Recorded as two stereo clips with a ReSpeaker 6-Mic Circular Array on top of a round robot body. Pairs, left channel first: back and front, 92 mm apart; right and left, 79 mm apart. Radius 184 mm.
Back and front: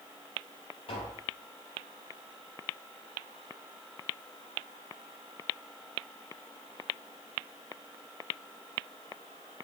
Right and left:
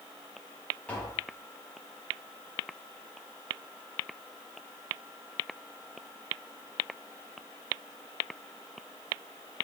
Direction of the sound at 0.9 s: 165° right.